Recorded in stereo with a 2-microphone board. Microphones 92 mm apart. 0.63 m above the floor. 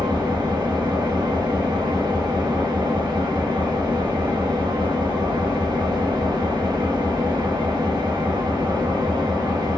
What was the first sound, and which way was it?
An engine running, 45° right (ahead or behind).